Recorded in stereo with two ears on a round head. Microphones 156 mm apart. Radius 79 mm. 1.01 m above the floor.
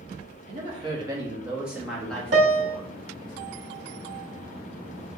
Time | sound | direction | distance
0.5 | a woman speaking | 35° right (ahead or behind) | 1.4 m
2.3 | a piano | 75° right (ahead or behind) | 1.1 m